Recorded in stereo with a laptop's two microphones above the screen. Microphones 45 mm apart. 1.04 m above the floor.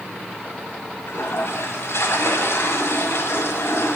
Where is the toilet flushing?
90° left, 1.9 m.